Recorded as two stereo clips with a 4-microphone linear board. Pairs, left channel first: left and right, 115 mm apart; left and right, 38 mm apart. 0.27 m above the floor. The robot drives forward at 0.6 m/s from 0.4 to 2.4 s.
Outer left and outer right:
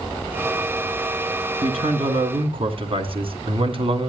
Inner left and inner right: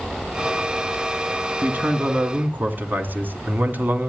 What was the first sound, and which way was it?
A man speaking, 55° right (ahead or behind).